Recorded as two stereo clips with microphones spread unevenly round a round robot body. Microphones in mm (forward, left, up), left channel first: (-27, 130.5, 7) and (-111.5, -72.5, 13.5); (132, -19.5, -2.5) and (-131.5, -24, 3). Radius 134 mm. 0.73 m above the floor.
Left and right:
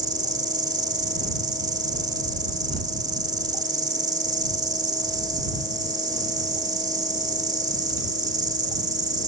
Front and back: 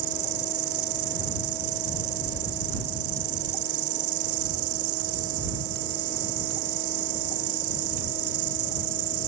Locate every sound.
0.0 s an insect: 175° left